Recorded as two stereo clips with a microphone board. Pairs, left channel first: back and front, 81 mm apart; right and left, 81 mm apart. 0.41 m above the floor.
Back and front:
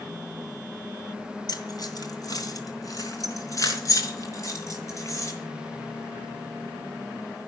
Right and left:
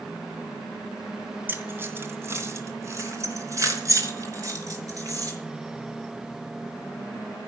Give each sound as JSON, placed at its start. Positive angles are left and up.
{"t": 1.5, "sound": "keys jangling", "azimuth_deg": 150, "distance_m": 2.5}